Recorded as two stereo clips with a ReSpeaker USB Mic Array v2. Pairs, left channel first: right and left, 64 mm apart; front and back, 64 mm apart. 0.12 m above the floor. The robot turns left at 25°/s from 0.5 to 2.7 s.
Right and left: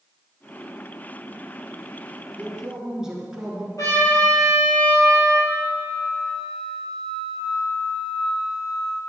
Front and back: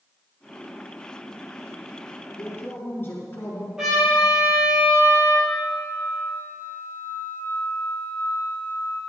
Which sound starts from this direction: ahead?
A flute, at 5.5 s.